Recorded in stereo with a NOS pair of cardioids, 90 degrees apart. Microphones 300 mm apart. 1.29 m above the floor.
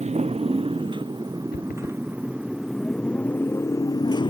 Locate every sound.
0.0 s a motorcycle: 20° right; by 4.3 s 15° left
1.5 s running footsteps: 35° left